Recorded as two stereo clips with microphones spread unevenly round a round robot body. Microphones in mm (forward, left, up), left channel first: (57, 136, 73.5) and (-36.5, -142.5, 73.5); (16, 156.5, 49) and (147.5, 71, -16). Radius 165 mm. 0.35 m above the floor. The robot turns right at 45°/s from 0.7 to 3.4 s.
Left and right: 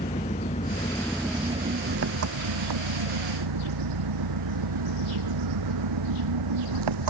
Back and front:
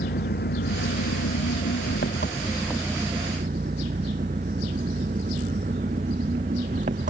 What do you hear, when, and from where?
0.0 s an engine running: 140° left; by 7.1 s 100° right